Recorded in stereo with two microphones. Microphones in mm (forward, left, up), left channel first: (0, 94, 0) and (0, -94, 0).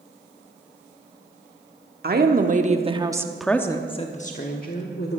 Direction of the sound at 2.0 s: 55° right (ahead or behind).